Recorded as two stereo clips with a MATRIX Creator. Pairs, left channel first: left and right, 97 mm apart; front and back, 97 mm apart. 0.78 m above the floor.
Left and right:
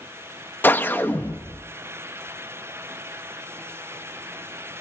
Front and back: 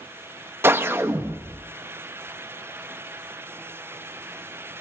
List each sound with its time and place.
0.6 s a whoosh: 140° left, 0.8 m